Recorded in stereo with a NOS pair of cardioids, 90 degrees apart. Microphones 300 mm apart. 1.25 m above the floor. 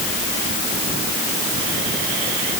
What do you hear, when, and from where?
Only background noise.